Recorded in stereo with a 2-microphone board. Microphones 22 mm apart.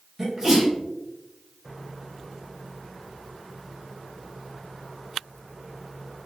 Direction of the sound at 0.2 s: 10° right (ahead or behind).